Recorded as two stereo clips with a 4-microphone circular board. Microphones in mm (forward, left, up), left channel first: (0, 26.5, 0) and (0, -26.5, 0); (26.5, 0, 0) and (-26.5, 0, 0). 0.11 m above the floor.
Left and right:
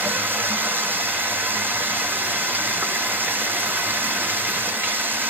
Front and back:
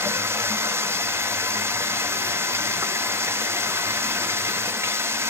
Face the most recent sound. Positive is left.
turn(degrees=-140)